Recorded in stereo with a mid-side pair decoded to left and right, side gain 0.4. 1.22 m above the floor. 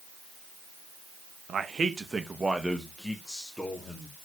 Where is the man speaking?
55° right, 1.4 m; by 4.2 s 15° left, 3 m.